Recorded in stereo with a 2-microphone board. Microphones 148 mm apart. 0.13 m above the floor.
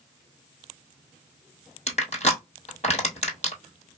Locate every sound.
1.9 s crushing: 50° left (ahead or behind), 1.4 m